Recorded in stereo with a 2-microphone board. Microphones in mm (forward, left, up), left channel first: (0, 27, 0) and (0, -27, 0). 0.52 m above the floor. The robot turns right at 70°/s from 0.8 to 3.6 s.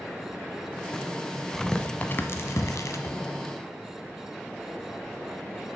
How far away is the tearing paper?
About 1.0 m.